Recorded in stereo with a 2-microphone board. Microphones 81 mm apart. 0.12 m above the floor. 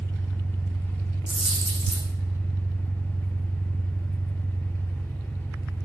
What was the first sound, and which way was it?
An engine running, 25° left (ahead or behind).